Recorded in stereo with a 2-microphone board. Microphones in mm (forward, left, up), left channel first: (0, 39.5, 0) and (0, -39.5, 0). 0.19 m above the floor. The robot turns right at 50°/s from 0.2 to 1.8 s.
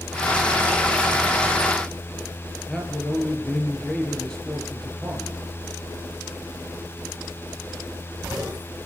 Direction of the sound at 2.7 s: 5° left (ahead or behind).